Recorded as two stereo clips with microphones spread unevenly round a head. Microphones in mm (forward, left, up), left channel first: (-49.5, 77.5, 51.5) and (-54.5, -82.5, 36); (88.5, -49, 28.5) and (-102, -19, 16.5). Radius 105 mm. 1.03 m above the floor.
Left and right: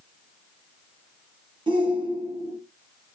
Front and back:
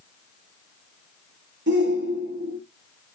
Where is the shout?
155° right, 2.0 m.